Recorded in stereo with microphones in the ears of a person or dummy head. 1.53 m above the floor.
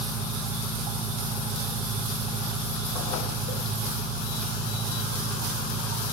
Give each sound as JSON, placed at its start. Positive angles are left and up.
{"t": 0.0, "sound": "an engine running", "side_deg": 30, "distance_m": 1.3}